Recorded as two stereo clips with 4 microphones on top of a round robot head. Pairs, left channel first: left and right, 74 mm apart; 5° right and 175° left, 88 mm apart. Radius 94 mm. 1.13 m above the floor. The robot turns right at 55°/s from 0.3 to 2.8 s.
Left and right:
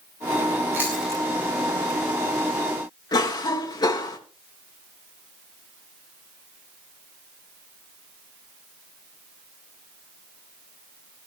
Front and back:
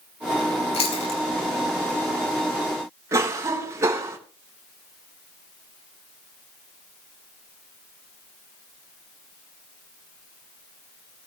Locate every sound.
0.7 s chewing: 25° right, 4.5 m; by 1.2 s straight ahead, 4.5 m
3.1 s a cough: 115° left, 3.5 m